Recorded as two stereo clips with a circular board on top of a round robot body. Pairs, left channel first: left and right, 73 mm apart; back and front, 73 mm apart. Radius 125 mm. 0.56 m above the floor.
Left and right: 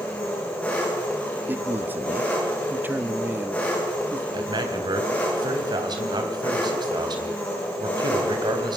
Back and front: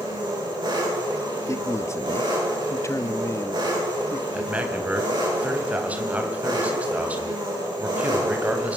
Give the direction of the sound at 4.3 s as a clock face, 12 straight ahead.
2 o'clock.